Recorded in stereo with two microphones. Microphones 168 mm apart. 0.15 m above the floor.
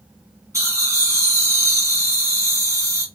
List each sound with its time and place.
0.5 s laughter: 20° right (ahead or behind), 1.7 m